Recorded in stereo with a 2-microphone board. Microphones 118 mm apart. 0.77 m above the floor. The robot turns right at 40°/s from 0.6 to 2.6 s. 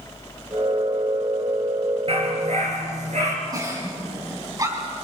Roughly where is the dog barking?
Right.